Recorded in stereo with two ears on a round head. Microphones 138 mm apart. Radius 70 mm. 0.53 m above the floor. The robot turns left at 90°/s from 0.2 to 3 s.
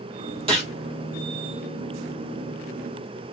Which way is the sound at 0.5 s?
40° right (ahead or behind).